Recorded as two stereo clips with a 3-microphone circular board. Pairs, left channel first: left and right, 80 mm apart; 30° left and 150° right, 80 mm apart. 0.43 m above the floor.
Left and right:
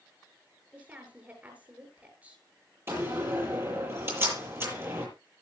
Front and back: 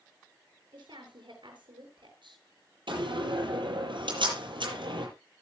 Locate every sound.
0.7 s a woman speaking: 160° right, 7 m
2.9 s a door slam: 150° right, 8.5 m